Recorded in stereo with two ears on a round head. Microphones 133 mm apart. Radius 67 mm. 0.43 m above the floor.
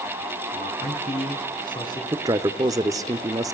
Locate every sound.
0.5 s a man speaking: 50° left (ahead or behind), 3.5 m; by 2.0 s 25° left (ahead or behind), 3.5 m
2.1 s a man speaking: 25° right (ahead or behind), 0.8 m